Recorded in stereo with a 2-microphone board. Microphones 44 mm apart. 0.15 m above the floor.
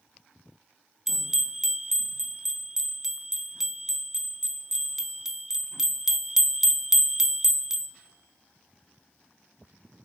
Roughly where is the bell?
Centre.